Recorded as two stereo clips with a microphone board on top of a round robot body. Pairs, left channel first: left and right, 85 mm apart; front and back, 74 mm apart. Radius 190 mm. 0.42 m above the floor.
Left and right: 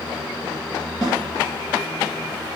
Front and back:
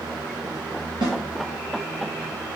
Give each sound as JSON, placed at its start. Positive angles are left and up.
{"t": 1.0, "sound": "a snare drum", "azimuth_deg": 175, "distance_m": 2.0}